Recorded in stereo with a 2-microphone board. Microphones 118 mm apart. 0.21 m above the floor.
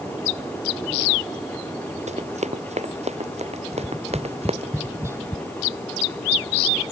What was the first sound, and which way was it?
Running footsteps, 70° right (ahead or behind).